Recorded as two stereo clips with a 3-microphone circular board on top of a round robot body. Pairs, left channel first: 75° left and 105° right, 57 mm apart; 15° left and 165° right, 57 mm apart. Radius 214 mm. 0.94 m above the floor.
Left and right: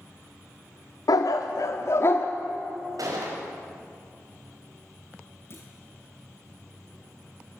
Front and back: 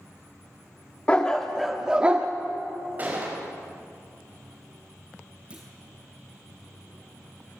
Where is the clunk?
125° left, 0.6 m.